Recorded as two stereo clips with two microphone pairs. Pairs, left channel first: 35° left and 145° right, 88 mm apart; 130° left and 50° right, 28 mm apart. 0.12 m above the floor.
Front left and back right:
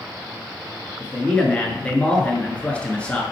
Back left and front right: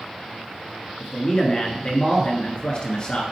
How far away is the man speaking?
About 1.5 m.